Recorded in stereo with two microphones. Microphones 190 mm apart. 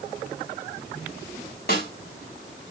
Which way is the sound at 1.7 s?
55° left (ahead or behind).